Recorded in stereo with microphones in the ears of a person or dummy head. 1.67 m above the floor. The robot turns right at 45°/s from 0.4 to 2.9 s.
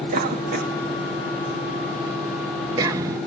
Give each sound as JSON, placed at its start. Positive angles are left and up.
{"t": 0.1, "sound": "a cough", "side_deg": -50, "distance_m": 1.5}